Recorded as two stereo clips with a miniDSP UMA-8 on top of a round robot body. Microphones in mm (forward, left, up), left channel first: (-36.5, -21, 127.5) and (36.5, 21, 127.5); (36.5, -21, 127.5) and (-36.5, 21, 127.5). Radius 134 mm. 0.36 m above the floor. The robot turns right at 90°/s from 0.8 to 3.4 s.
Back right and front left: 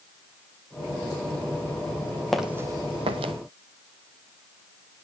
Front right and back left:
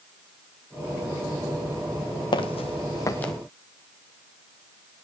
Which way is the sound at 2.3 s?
65° right.